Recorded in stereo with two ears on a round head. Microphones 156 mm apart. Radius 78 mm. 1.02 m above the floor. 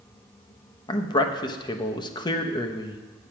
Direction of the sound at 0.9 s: 25° left (ahead or behind).